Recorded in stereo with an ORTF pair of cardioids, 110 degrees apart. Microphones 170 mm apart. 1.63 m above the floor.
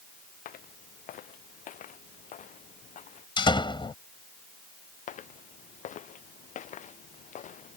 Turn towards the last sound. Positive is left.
turn(degrees=50)